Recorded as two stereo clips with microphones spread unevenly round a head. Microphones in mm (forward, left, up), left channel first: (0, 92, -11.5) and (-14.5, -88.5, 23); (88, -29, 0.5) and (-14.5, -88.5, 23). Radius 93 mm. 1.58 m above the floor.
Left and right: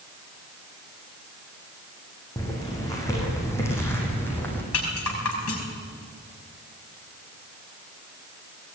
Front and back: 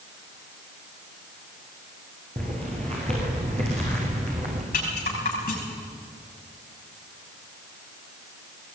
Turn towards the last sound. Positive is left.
turn(degrees=70)